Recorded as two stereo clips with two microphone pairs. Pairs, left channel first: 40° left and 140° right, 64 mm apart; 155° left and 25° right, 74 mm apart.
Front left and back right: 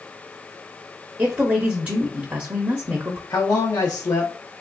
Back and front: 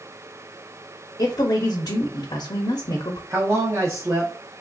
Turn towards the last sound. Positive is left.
turn(degrees=25)